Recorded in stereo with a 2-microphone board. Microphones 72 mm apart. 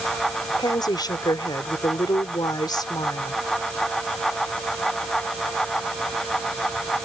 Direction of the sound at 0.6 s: 80° left.